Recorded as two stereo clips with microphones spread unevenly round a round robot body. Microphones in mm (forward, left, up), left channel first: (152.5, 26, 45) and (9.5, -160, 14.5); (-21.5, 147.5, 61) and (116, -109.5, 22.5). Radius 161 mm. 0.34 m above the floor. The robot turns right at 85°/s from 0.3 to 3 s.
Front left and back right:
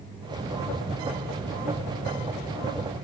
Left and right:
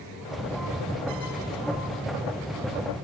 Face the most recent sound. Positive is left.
No sound to turn to.